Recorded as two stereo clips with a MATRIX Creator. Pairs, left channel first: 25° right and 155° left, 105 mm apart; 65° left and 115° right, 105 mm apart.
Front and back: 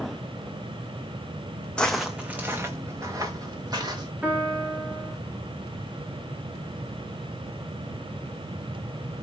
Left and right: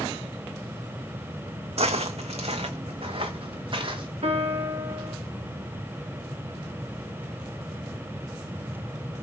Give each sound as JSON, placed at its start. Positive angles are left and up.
{"t": 1.8, "sound": "footsteps", "azimuth_deg": -105, "distance_m": 0.6}
{"t": 4.2, "sound": "a piano", "azimuth_deg": -125, "distance_m": 1.5}